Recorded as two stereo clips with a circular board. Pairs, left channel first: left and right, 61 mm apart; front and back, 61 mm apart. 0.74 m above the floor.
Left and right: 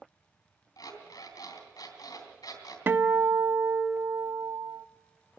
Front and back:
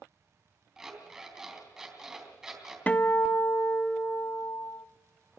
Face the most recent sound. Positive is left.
turn(degrees=-55)